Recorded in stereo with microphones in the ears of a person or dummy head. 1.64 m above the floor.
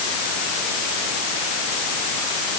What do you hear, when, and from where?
Only background noise.